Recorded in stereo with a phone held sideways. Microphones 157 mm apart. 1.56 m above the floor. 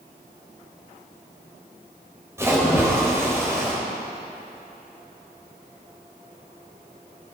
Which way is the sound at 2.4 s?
15° right (ahead or behind).